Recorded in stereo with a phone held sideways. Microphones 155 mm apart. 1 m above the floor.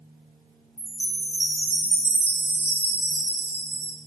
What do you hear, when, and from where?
0.8 s a chime: 85° left, 2 m